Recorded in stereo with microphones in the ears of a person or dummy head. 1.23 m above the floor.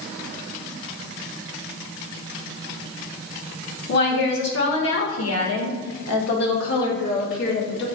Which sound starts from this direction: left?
A woman speaking, at 3.9 s.